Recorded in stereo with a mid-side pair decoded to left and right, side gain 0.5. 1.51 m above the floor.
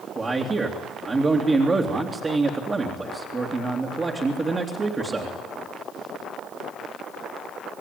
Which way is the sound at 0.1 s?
30° right.